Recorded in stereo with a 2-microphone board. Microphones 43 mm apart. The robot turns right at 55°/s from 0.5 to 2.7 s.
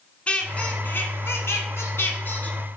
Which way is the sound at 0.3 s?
30° left.